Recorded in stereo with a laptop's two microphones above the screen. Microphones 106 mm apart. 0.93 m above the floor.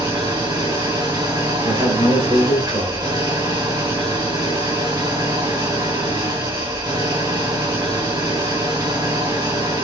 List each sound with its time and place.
0.0 s an engine running: 40° right (ahead or behind), 3.5 m
1.6 s a man speaking: 35° right (ahead or behind), 3 m